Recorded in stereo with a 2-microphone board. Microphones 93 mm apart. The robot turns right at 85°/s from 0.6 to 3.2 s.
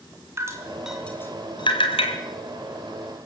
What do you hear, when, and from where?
0.4 s dripping: 30° right (ahead or behind), 3 m; by 2.1 s 70° left (ahead or behind), 3 m